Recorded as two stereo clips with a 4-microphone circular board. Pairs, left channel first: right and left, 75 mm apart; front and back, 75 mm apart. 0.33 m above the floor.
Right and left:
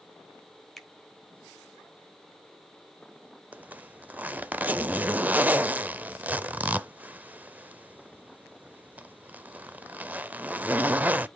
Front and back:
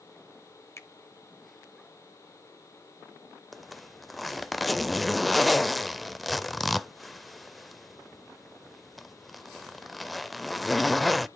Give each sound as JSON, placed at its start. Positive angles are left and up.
{"t": 0.8, "sound": "a finger snap", "azimuth_deg": -5, "distance_m": 1.1}
{"t": 3.5, "sound": "a zipper", "azimuth_deg": 90, "distance_m": 0.5}